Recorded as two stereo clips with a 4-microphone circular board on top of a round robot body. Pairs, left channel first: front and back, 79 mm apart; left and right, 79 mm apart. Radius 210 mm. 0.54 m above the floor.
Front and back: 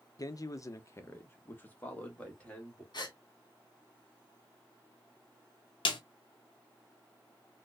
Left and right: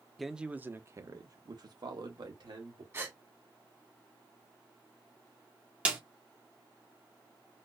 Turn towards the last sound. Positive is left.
turn(degrees=-15)